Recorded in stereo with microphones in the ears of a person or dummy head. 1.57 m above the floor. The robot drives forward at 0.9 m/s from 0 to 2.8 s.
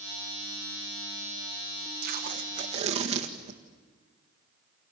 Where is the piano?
No piano in this recording.